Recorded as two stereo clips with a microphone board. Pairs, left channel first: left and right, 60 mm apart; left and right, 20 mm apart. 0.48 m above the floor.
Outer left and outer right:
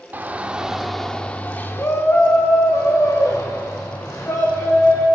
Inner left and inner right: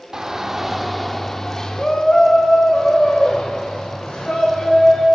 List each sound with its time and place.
0.1 s a shout: 30° right (ahead or behind), 1.0 m; by 5.0 s 70° left (ahead or behind), 3 m